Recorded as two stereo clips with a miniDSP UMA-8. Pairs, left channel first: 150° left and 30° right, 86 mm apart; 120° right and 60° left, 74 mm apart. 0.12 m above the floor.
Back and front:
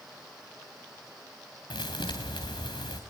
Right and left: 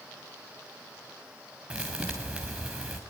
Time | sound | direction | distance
1.7 | a thud | 135° left | 3 m